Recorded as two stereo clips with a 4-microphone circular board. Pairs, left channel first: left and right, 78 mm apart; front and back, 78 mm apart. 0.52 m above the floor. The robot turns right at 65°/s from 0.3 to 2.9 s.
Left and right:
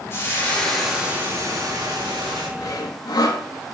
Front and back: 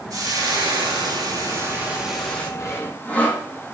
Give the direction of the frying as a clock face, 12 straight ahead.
7 o'clock.